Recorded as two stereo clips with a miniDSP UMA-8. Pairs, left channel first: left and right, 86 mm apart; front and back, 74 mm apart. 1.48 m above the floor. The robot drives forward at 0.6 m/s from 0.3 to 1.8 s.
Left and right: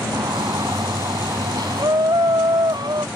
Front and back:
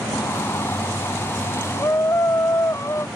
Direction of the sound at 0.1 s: 50° right.